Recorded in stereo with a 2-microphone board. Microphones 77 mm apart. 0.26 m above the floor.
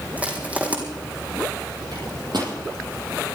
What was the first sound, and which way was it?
Crushing, 20° right (ahead or behind).